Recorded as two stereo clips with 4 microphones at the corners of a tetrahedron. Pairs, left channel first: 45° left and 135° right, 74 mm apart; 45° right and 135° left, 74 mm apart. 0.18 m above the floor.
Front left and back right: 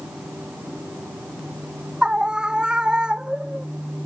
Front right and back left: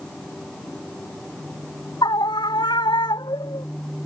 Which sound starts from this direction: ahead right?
A scream, at 2.0 s.